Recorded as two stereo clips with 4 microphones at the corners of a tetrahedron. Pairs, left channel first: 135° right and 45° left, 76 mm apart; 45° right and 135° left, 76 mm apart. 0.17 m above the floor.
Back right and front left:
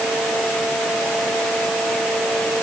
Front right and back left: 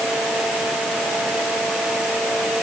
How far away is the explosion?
I don't hear an explosion.